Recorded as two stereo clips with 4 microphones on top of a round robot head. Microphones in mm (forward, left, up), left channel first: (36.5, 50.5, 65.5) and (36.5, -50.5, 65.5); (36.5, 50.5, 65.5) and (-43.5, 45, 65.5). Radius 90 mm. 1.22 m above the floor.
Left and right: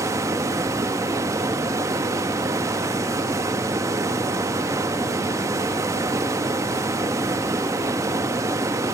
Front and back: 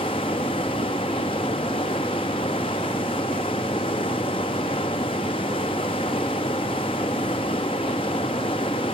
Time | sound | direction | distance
0.0 | running water | 35° right | 0.8 m